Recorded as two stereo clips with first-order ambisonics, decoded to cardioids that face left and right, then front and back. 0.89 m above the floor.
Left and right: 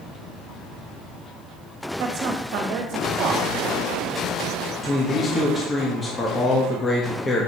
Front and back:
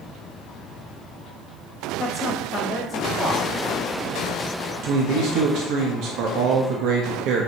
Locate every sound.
2.0 s a woman speaking: 70° right, 1.4 m
4.8 s a man speaking: 165° left, 1.1 m